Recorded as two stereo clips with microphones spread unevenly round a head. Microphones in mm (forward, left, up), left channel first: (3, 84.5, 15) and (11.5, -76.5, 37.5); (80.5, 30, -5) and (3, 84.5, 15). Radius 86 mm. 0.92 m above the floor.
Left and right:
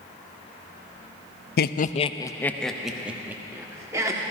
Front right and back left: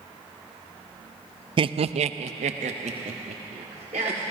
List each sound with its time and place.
1.6 s laughter: 105° left, 0.5 m; by 4.2 s 160° right, 1.8 m